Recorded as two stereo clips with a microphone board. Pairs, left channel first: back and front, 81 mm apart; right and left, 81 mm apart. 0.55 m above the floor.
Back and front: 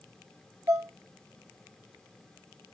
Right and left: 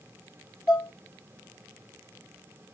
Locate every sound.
0.7 s dishes clattering: 60° right, 0.9 m